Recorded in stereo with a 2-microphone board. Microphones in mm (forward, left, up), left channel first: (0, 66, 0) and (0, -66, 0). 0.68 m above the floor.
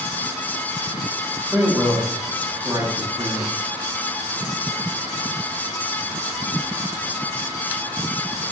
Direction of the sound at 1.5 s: 5° right (ahead or behind).